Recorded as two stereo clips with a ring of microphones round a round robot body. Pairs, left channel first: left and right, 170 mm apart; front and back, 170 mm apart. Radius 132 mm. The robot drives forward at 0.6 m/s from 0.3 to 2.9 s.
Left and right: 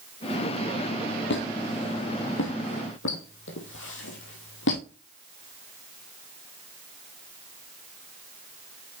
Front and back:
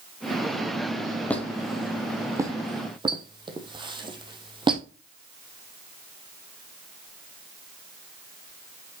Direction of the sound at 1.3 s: 80° left.